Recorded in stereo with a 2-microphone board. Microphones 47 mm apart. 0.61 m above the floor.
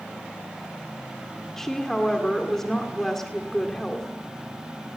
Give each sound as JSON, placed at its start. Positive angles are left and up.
{"t": 1.6, "sound": "a woman speaking", "side_deg": 10, "distance_m": 1.9}